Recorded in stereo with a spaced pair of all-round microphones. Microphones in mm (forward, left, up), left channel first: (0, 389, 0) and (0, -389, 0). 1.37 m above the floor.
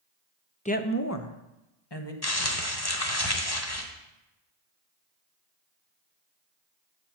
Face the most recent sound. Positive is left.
turn(degrees=30)  # may be behind; listen again after turning